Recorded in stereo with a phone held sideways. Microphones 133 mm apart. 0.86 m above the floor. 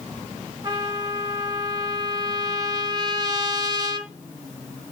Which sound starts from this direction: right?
A trumpet, at 0.6 s.